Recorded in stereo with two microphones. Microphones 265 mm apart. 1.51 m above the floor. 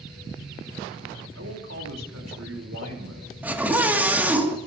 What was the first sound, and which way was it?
A man speaking, 70° right (ahead or behind).